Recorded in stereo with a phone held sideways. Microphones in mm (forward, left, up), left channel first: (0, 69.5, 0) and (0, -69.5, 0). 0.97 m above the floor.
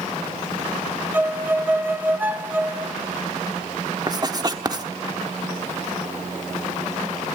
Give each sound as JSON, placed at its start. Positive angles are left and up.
{"t": 1.1, "sound": "a violin", "side_deg": -15, "distance_m": 0.9}
{"t": 4.1, "sound": "writing", "side_deg": -30, "distance_m": 1.1}